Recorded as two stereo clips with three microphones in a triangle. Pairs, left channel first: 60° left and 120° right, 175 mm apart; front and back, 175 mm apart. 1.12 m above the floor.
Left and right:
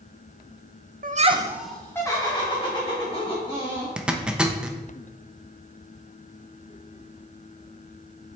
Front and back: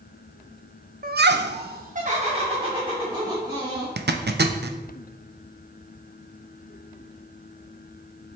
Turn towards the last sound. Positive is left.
turn(degrees=155)